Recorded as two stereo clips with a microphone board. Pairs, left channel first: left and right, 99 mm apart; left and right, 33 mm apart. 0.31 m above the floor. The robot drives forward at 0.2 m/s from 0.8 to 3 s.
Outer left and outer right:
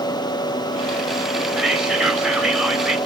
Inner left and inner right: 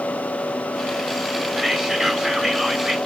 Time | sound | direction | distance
1.6 | whispering | 5° right (ahead or behind) | 1.2 m